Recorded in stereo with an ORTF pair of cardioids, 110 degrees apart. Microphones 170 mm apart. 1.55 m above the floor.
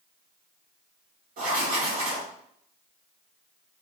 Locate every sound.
1.4 s writing: 60° right, 3 m